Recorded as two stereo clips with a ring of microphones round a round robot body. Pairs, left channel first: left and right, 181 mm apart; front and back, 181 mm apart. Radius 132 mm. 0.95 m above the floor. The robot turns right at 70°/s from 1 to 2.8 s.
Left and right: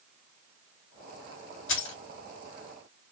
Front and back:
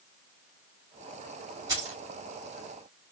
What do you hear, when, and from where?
1.7 s keys jangling: 105° left, 1.5 m; by 2.0 s 120° left, 1.5 m